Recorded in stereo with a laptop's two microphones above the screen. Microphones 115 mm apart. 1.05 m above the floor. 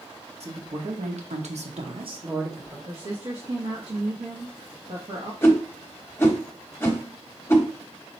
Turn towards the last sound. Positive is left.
turn(degrees=20)  # may be behind; listen again after turning